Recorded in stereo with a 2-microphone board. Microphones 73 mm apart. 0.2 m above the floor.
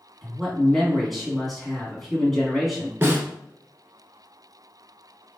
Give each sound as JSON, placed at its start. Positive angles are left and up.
{"t": 0.2, "sound": "a man speaking", "side_deg": 0, "distance_m": 2.0}
{"t": 3.0, "sound": "a snare drum", "side_deg": -30, "distance_m": 1.2}